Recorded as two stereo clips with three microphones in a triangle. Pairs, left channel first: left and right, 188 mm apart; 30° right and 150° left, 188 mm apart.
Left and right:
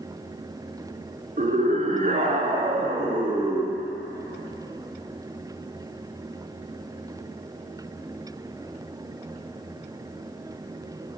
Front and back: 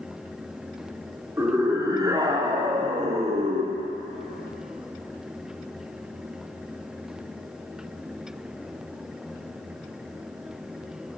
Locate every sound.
1.4 s a scream: 135° right, 4 m; by 3.8 s 165° right, 2.5 m